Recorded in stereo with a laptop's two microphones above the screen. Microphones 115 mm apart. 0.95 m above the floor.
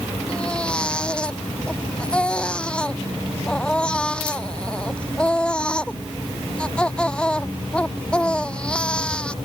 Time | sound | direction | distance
0.3 | a baby crying | 10° left (ahead or behind) | ?